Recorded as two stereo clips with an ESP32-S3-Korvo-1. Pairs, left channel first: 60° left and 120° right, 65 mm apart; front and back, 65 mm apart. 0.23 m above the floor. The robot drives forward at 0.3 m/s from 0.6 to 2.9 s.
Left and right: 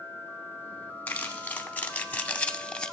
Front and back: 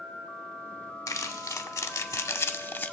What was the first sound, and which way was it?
Crumpling, straight ahead.